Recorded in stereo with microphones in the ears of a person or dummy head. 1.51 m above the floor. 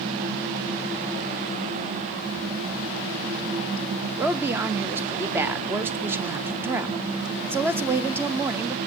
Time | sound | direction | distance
4.2 | a woman speaking | 10° right (ahead or behind) | 0.5 m